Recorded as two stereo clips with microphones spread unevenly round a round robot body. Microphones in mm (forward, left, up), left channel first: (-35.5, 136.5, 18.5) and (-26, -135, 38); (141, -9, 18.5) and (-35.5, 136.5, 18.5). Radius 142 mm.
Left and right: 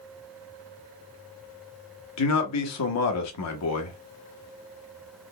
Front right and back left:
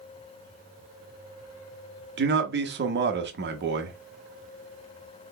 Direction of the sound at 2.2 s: 105° left.